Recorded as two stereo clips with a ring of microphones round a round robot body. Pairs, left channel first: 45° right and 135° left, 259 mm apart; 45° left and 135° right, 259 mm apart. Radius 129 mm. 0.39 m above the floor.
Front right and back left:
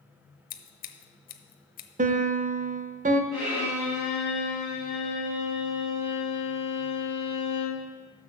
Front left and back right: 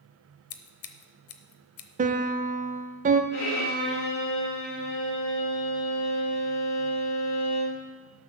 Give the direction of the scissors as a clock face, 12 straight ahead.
12 o'clock.